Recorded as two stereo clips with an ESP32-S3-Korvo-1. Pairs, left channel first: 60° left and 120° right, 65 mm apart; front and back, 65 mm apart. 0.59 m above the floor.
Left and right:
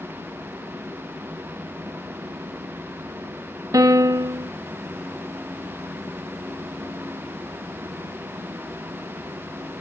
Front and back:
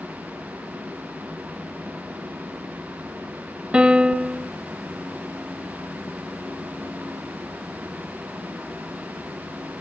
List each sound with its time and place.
3.7 s a piano: 105° right